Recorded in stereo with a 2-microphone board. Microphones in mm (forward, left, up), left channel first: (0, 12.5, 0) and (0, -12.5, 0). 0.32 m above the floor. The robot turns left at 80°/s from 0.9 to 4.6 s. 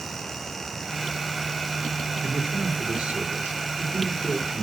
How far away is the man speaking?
About 5.5 m.